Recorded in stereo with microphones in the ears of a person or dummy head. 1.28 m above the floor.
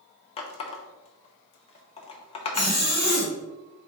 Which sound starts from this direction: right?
A zipper, at 2.5 s.